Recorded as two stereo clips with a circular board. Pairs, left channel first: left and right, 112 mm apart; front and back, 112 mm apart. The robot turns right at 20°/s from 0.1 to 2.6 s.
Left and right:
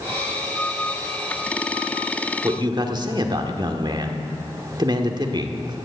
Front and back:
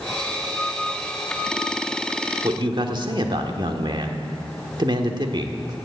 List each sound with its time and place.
2.4 s a man speaking: 140° right, 1.4 m; by 5.8 s 135° right, 1.4 m